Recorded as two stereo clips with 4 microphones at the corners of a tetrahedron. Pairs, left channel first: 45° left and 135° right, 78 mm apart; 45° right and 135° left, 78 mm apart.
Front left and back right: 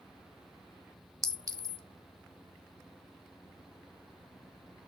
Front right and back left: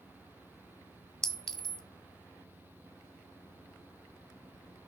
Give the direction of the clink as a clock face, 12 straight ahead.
4 o'clock.